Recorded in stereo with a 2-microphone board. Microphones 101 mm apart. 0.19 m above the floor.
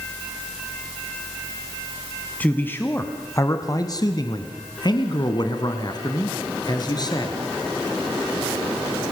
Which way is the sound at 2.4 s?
15° left (ahead or behind).